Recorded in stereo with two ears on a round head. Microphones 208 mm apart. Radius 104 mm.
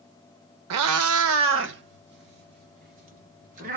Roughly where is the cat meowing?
Right.